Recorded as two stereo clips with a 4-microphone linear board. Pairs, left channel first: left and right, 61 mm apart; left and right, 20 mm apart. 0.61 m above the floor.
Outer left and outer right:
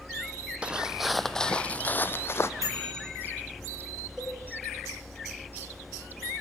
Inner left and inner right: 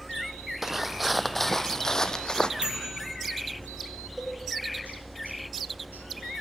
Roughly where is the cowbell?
Centre.